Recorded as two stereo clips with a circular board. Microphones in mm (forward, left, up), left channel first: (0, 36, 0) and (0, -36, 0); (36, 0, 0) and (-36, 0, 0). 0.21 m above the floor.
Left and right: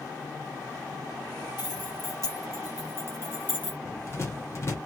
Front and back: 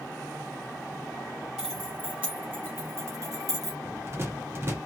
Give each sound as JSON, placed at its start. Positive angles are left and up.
{"t": 1.6, "sound": "keys jangling", "azimuth_deg": 100, "distance_m": 2.5}
{"t": 3.9, "sound": "a rattle", "azimuth_deg": 130, "distance_m": 1.5}